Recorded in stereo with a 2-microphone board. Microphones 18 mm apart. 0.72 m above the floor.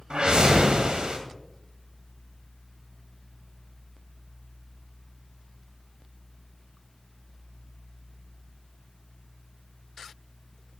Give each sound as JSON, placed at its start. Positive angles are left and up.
{"t": 0.1, "sound": "a whoosh", "side_deg": -60, "distance_m": 2.0}